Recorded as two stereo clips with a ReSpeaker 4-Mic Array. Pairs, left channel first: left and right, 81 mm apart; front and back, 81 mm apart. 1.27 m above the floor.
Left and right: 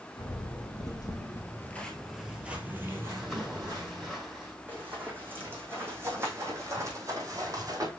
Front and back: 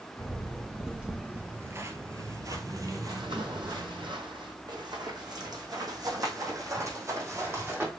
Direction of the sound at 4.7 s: 155° right.